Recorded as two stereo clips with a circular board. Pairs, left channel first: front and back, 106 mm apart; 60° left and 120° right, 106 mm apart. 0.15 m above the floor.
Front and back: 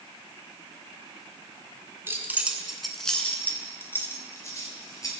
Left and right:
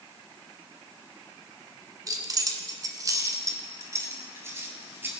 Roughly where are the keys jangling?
Behind right.